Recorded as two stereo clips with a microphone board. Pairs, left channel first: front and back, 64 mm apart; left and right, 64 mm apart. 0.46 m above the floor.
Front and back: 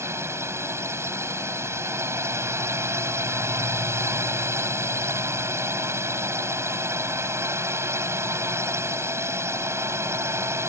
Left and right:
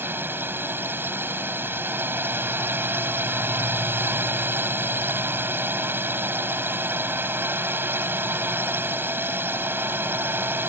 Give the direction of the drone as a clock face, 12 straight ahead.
5 o'clock.